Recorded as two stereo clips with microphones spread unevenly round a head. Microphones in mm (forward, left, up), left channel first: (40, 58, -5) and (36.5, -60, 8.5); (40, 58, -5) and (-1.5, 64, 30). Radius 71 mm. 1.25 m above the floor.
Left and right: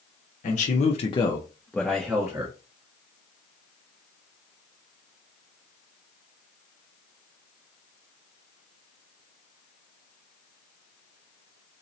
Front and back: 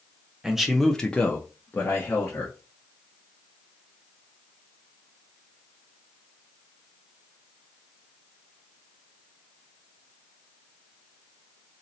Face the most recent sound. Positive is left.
turn(degrees=-20)